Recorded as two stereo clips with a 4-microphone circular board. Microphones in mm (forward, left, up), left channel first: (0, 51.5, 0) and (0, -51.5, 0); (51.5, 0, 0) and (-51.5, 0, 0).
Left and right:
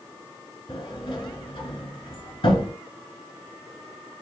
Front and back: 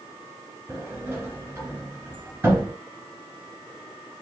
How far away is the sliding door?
About 2.5 m.